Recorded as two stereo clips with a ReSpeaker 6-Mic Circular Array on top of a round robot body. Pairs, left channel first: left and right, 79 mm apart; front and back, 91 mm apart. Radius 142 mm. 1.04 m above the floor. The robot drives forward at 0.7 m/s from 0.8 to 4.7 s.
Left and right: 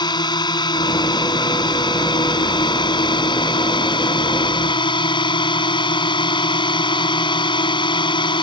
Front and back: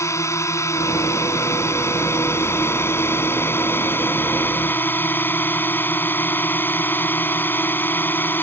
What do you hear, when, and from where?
0.0 s a drone: 60° left; by 8.4 s 70° left